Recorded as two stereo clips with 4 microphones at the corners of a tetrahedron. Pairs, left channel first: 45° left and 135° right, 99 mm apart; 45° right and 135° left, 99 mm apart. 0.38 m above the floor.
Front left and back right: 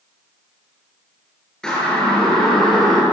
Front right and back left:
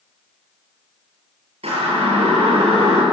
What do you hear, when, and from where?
1.6 s a siren: 130° left, 7.5 m